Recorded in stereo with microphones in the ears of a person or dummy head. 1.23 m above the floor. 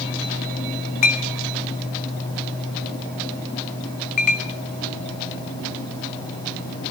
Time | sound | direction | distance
1.0 | a clink | 40° left (ahead or behind) | 1.6 m